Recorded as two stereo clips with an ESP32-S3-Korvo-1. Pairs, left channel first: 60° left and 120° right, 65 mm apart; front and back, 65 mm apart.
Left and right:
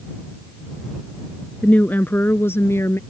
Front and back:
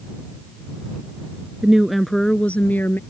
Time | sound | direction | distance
1.6 | a woman speaking | 110° left | ?